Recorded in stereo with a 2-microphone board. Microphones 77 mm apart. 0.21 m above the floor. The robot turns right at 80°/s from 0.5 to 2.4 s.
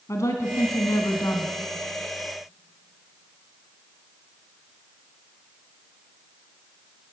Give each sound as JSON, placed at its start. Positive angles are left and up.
{"t": 0.1, "sound": "a woman speaking", "azimuth_deg": 60, "distance_m": 2.5}